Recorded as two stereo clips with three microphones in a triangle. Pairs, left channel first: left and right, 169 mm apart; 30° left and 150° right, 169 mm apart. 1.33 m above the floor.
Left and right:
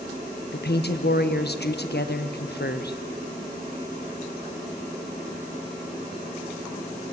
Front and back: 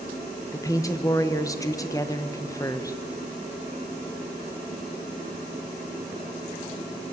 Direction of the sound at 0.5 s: 100° left.